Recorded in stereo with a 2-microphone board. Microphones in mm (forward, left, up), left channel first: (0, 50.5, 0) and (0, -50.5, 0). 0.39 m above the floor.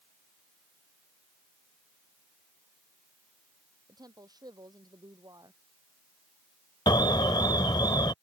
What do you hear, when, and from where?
3.9 s a woman speaking: 40° right (ahead or behind)
6.9 s an alarm: 45° left (ahead or behind)